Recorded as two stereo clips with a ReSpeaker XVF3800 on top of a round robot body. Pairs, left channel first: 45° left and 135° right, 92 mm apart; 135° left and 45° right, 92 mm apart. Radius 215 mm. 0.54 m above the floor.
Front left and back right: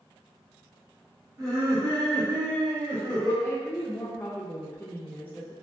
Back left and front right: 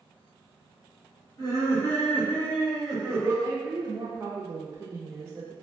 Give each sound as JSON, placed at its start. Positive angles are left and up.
{"t": 1.4, "sound": "laughter", "azimuth_deg": 180, "distance_m": 1.4}
{"t": 3.4, "sound": "a woman speaking", "azimuth_deg": -10, "distance_m": 0.6}